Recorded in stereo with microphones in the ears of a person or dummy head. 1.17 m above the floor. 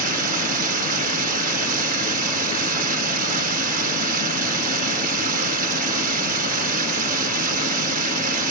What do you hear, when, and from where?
0.0 s running water: 50° right (ahead or behind)